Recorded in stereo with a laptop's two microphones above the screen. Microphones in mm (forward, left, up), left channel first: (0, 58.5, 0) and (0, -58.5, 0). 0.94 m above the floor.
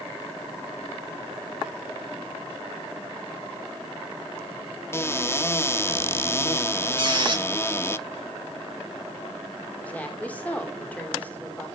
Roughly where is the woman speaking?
Centre.